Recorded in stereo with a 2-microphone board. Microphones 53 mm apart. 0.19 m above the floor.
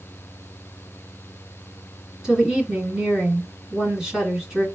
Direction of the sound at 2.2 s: 15° right (ahead or behind).